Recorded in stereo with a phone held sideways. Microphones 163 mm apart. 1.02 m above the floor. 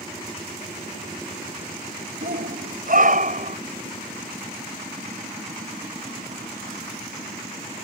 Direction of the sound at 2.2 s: 65° right (ahead or behind).